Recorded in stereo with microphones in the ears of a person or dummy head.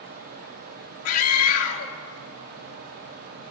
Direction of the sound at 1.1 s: 80° left.